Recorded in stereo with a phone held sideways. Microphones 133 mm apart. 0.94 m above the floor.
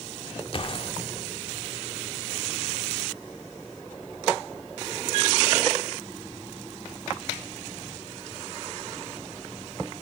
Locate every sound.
0.5 s a gunshot: 40° left (ahead or behind), 1.5 m